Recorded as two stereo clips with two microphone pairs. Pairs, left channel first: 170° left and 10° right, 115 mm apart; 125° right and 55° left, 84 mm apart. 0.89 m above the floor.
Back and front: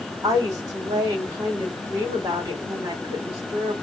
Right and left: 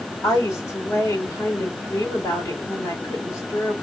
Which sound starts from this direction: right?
A woman speaking, at 0.2 s.